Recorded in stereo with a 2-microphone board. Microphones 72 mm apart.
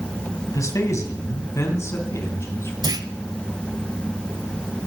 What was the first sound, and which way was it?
A man speaking, 45° left (ahead or behind).